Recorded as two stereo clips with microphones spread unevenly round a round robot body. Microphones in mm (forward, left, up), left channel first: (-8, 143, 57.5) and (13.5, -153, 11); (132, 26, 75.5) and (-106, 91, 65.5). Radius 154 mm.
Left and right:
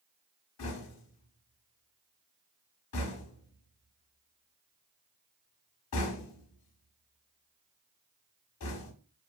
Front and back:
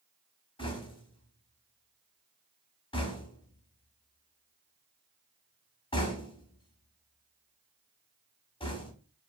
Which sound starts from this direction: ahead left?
Knocking, at 0.6 s.